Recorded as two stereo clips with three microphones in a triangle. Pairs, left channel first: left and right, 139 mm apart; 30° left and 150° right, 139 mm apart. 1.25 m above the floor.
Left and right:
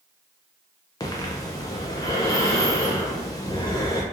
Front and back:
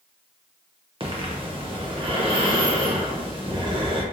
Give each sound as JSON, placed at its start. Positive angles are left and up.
{"t": 1.0, "sound": "breathing", "azimuth_deg": 160, "distance_m": 0.7}